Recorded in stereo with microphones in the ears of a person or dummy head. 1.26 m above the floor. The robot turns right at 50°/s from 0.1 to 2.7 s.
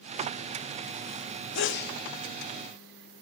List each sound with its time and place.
1.6 s a sneeze: 60° left (ahead or behind), 1.2 m; by 2.0 s 45° left (ahead or behind), 1.2 m